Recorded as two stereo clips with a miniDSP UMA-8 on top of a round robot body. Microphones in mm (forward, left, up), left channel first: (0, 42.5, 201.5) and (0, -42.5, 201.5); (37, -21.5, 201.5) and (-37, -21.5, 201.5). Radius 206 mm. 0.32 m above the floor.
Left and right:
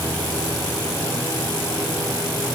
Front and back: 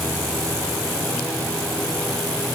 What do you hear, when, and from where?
Only background noise.